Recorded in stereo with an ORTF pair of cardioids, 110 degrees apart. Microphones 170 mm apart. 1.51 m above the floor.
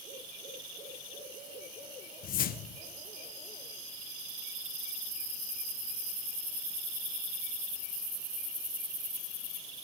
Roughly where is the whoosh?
Ahead left.